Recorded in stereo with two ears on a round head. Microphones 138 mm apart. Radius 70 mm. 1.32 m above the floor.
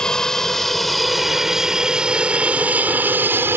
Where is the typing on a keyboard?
I don't hear typing on a keyboard.